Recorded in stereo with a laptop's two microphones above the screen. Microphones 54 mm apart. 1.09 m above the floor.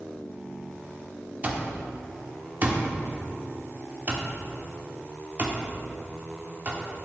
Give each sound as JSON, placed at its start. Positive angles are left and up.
{"t": 1.4, "sound": "an alarm clock", "side_deg": -35, "distance_m": 1.0}